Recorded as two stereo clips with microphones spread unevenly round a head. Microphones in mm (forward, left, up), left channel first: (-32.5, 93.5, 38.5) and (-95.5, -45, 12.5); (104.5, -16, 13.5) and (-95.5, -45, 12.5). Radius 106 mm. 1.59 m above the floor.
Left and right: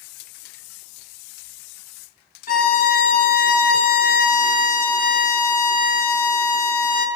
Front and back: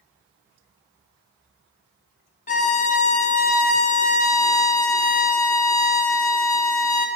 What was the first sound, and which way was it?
A violin, 60° left.